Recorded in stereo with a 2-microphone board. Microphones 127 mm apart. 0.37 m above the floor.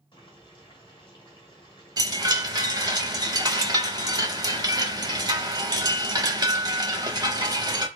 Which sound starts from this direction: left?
Boiling, at 0.1 s.